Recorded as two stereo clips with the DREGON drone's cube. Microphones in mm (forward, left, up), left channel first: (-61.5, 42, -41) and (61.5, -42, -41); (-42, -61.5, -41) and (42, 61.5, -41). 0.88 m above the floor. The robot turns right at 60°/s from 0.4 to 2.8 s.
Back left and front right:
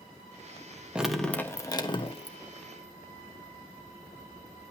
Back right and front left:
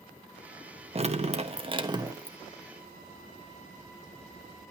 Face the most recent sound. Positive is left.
turn(degrees=155)